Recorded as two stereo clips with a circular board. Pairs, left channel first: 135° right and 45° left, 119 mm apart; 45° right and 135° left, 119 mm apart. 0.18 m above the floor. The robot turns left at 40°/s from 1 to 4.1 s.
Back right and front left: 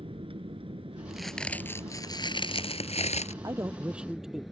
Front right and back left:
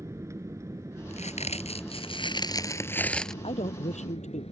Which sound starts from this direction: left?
An aircraft, at 0.0 s.